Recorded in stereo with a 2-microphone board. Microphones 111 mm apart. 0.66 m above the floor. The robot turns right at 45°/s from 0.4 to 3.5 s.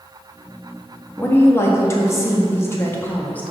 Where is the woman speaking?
20° left (ahead or behind), 0.5 m; by 3.5 s 10° left (ahead or behind), 0.5 m.